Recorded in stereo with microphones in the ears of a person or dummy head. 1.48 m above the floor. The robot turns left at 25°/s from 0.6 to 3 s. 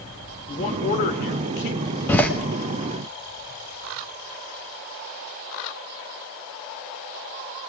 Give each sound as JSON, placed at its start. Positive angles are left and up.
{"t": 0.5, "sound": "a man speaking", "azimuth_deg": 145, "distance_m": 1.3}
{"t": 2.1, "sound": "a door slam", "side_deg": 15, "distance_m": 1.4}